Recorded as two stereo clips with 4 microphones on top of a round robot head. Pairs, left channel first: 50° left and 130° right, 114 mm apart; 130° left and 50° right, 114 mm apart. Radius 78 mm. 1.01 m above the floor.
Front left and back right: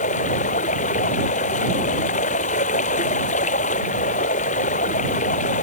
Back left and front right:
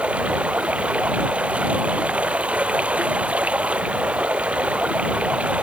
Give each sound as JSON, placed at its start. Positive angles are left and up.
{"t": 0.0, "sound": "running water", "azimuth_deg": 30}